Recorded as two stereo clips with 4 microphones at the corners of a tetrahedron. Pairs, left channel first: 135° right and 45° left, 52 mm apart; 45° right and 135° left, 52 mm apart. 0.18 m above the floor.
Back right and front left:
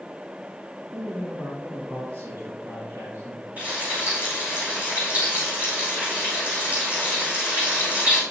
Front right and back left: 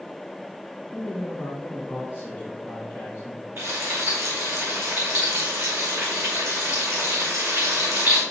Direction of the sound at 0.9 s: 75° left.